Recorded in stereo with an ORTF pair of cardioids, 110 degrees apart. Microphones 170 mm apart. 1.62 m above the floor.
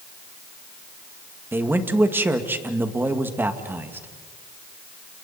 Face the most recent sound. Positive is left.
turn(degrees=-10)